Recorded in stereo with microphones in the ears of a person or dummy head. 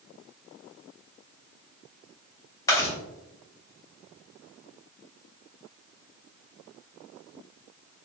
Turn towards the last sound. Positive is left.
turn(degrees=15)  # may be behind; listen again after turning